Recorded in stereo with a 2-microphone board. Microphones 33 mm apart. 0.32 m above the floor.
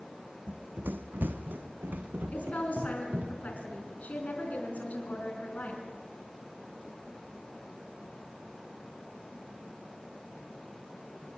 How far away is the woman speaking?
About 4 m.